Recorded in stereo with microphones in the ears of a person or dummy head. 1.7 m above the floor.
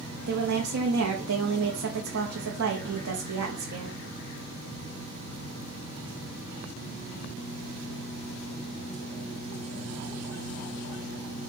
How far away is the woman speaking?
About 0.6 m.